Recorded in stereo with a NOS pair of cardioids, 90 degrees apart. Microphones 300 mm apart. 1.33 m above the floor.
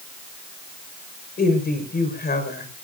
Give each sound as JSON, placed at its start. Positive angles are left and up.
{"t": 1.4, "sound": "a woman speaking", "azimuth_deg": 30, "distance_m": 5.0}